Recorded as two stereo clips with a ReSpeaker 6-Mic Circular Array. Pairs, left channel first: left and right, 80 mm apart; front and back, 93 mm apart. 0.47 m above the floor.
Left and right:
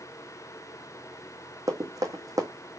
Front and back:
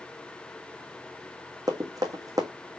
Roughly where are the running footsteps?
Behind right.